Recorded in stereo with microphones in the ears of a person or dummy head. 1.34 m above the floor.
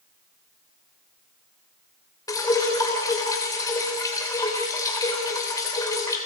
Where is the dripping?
20° left (ahead or behind), 2.5 m.